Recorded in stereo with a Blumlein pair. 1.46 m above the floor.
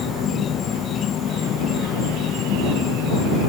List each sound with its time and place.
0.0 s an insect: 25° left